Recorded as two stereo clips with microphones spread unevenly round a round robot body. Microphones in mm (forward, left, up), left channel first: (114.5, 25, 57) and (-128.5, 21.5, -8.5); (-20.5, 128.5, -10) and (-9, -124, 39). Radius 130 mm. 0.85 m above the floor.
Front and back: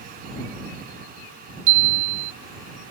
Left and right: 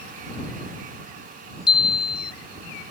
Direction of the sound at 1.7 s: 165° left.